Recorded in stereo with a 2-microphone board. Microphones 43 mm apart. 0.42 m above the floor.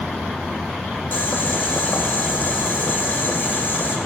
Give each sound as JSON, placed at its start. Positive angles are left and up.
{"t": 1.1, "sound": "boiling", "side_deg": 50, "distance_m": 1.4}